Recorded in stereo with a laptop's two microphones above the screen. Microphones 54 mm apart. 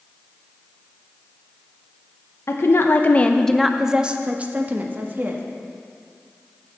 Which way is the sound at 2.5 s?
60° left (ahead or behind).